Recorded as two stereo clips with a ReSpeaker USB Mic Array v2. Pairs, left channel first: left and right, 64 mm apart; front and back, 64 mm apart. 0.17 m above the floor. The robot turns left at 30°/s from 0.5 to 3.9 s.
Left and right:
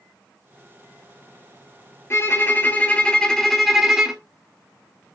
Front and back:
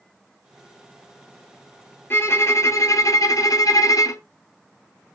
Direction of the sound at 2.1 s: 45° left.